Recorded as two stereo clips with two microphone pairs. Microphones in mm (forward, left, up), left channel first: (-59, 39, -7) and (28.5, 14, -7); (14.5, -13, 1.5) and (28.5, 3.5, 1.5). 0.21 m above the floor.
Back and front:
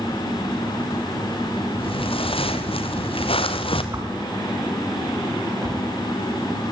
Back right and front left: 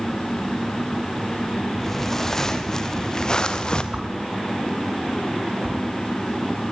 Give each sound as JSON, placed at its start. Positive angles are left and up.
{"t": 1.8, "sound": "footsteps", "azimuth_deg": 150, "distance_m": 3.5}
{"t": 3.9, "sound": "a whoosh", "azimuth_deg": 40, "distance_m": 6.0}